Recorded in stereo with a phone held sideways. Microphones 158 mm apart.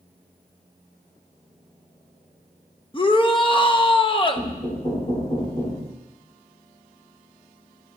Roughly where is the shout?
Left.